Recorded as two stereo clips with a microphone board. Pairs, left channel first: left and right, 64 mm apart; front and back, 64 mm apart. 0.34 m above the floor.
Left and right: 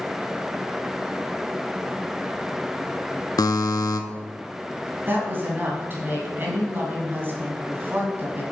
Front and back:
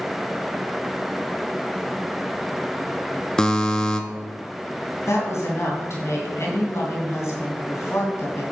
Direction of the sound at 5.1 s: 35° right.